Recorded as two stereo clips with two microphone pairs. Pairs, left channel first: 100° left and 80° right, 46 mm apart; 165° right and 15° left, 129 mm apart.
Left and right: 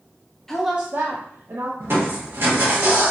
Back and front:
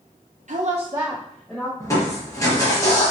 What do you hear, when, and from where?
0.5 s a woman speaking: 20° left, 0.7 m; by 1.7 s 95° right, 1.2 m
1.8 s crushing: 105° right, 1.5 m